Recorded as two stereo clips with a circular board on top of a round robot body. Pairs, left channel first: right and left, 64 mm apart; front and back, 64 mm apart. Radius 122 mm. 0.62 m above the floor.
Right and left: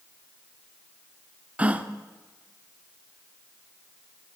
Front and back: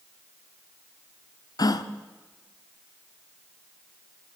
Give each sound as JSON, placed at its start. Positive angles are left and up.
{"t": 1.6, "sound": "a gasp", "azimuth_deg": 20, "distance_m": 0.9}